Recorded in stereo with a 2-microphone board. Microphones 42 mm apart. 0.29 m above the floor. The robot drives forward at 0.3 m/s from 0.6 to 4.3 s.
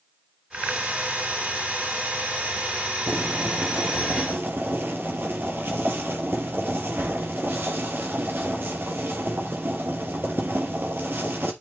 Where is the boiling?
55° right (ahead or behind), 3 m; by 11.5 s 60° right (ahead or behind), 2.5 m.